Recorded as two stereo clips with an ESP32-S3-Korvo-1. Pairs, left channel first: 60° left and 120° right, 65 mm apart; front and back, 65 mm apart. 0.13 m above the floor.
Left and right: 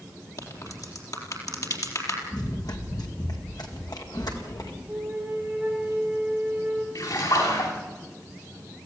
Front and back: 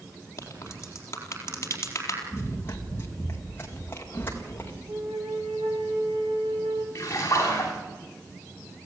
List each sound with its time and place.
0.4 s a crack: 45° left, 4 m
2.3 s running footsteps: 55° left, 3 m
4.9 s a flute: 165° left, 4.5 m
7.0 s a splash: 50° left, 9.5 m